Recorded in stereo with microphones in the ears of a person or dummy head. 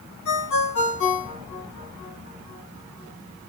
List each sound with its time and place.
0.2 s a ringtone: 80° left, 7 m